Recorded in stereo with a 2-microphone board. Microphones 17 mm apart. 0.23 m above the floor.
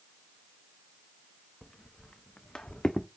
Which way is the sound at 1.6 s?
40° left (ahead or behind).